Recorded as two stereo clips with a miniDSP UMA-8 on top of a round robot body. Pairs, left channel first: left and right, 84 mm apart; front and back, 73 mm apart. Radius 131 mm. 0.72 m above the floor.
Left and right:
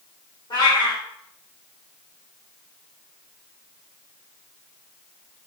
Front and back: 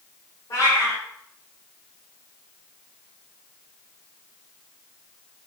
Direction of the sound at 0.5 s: 50° left.